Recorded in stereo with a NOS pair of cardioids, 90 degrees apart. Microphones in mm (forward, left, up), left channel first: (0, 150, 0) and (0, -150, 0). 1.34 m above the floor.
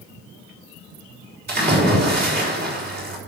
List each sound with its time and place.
1.5 s a splash: 30° right, 4.5 m